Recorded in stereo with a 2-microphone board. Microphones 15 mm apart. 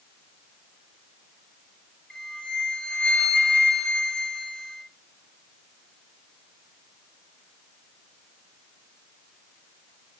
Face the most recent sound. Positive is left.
turn(degrees=65)  # may be behind; listen again after turning